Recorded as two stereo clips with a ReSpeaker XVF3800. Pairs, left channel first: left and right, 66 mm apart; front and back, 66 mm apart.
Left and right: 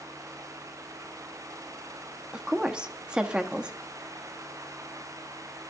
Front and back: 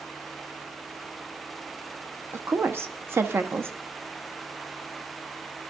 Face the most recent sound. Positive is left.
turn(degrees=-155)